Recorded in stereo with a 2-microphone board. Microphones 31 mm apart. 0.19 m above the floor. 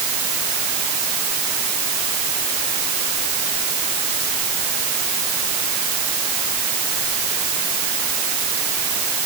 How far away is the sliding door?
I don't hear a sliding door.